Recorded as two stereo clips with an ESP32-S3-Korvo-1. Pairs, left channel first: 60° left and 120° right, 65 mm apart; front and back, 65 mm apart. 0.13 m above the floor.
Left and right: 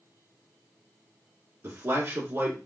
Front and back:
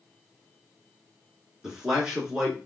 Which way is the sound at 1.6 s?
100° right.